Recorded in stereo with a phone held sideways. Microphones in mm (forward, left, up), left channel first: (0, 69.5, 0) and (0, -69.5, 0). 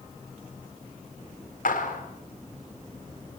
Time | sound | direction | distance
1.6 | a clap | 80° left | 4.5 m